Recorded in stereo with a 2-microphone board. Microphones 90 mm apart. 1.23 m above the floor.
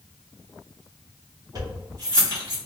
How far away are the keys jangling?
About 1.7 m.